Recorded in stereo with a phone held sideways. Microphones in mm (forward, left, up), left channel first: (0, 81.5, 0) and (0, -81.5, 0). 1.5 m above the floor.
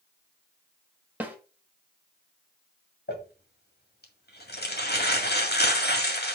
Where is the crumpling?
70° left (ahead or behind), 2.0 m.